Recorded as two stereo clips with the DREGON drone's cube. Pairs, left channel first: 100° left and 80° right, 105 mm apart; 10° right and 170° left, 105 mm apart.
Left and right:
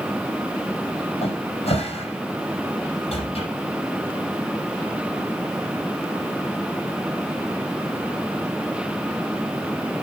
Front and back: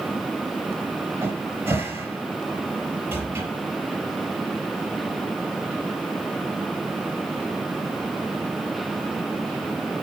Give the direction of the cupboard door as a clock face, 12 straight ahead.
9 o'clock.